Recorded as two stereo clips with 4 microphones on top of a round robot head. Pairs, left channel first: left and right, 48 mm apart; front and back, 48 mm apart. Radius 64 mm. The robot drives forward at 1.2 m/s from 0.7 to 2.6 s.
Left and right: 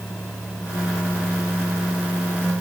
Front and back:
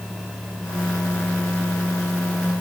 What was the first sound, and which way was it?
Only background noise.